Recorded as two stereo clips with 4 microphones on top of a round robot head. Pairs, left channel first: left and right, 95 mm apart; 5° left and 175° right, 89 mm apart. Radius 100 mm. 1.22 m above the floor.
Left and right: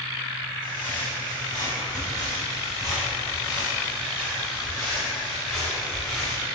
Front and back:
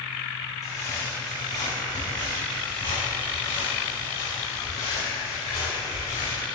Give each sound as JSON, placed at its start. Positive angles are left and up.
{"t": 0.6, "sound": "footsteps", "azimuth_deg": 55, "distance_m": 3.0}